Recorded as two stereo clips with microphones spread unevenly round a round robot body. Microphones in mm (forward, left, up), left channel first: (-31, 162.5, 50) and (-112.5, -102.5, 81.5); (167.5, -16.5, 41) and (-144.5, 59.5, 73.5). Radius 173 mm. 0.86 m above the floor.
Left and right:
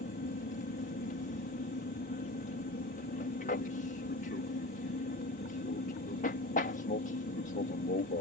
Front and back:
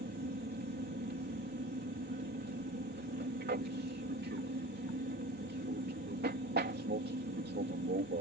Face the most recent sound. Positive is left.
turn(degrees=115)